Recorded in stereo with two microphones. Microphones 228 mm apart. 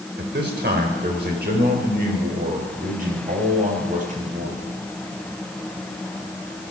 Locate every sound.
0.2 s a man speaking: 50° right (ahead or behind), 3.5 m; by 4.6 s 35° right (ahead or behind), 6 m